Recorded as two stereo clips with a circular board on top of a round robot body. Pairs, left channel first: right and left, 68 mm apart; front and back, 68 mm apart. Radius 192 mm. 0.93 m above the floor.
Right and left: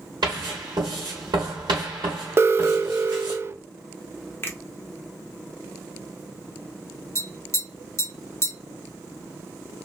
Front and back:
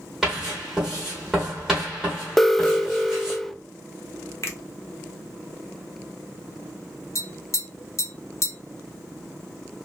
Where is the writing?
95° left, 0.6 m.